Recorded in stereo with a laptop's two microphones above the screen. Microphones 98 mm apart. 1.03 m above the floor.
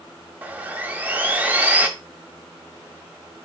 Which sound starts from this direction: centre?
Sawing, at 0.4 s.